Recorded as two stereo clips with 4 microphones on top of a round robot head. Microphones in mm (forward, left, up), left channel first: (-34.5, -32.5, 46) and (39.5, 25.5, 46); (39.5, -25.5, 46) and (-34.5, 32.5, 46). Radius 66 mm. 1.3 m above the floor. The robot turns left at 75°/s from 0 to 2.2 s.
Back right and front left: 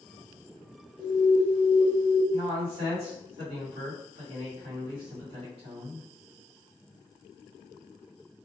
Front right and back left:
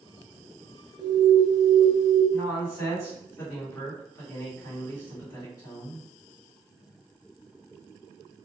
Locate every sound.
1.0 s an alarm: 125° left, 1.9 m; by 2.2 s 35° left, 1.9 m
2.3 s a man speaking: 25° left, 1.9 m